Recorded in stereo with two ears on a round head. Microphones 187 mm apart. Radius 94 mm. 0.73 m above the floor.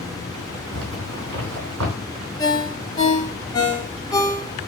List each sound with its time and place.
0.7 s a zipper: 75° right (ahead or behind), 3 m
2.4 s a ringtone: 20° left (ahead or behind), 1.3 m